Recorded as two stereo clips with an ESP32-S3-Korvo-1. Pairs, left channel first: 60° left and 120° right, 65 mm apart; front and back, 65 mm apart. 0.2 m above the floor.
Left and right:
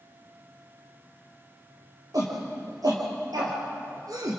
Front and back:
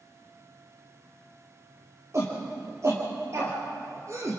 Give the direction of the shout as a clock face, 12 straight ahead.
5 o'clock.